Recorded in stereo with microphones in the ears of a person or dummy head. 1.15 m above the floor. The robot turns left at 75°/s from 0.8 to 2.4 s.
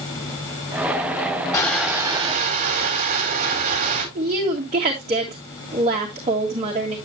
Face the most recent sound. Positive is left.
turn(degrees=-30)  # may be behind; listen again after turning